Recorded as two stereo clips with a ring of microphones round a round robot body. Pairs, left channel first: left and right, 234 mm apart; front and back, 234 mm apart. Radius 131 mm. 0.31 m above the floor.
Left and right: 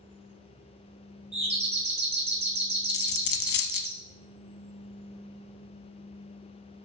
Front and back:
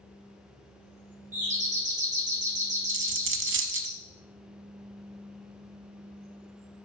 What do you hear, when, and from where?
1.3 s a doorbell: 140° right, 2 m
2.9 s a dropped coin: 140° left, 0.6 m